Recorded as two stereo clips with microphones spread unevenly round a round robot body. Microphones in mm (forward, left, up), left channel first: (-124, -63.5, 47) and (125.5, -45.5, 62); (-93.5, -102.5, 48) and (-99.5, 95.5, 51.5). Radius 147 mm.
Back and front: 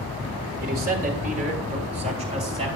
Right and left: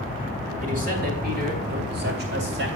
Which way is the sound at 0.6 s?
50° left.